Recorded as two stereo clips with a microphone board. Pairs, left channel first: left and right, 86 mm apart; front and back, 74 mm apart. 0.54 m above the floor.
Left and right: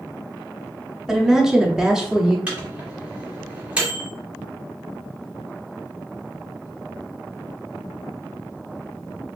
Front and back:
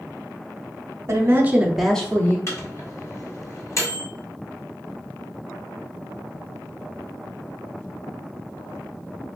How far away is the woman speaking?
About 0.8 m.